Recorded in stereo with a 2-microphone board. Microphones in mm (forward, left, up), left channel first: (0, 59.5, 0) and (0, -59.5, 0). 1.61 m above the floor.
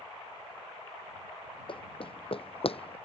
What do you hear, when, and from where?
1.7 s running footsteps: 50° left (ahead or behind); by 3.0 s 55° left (ahead or behind)